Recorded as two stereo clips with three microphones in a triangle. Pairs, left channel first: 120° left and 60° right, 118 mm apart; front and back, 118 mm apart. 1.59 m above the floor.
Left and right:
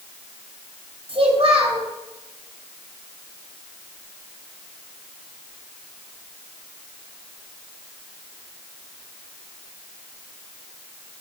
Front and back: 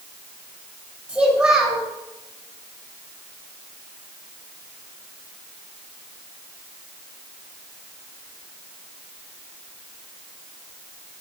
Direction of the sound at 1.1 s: 100° right.